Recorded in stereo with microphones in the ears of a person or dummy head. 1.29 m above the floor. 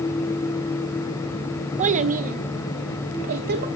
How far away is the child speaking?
About 1.1 m.